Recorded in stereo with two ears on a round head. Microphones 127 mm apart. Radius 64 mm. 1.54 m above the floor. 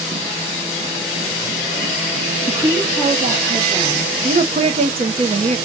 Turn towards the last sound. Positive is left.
turn(degrees=-45)  # may be behind; listen again after turning